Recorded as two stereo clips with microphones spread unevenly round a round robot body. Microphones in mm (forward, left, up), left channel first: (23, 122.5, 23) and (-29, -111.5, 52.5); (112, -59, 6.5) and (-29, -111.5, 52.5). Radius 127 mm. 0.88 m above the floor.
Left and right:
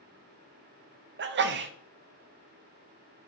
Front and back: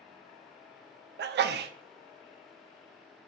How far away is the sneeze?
About 0.6 m.